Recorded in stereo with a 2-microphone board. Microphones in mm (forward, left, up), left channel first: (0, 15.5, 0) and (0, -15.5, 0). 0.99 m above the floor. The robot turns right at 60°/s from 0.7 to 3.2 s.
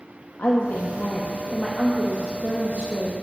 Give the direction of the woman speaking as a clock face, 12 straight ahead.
8 o'clock.